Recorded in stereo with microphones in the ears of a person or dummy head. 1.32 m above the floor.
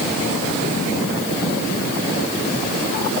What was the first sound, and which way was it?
Only background noise.